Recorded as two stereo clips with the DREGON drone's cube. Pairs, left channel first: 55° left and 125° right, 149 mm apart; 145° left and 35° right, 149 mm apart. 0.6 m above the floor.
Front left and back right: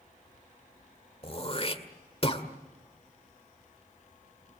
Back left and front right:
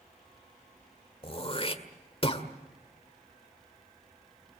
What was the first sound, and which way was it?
Throat clearing, 100° left.